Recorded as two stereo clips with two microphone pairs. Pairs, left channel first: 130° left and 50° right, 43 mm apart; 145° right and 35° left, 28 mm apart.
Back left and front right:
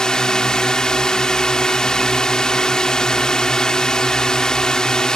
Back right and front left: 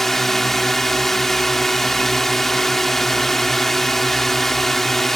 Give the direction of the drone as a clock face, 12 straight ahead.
7 o'clock.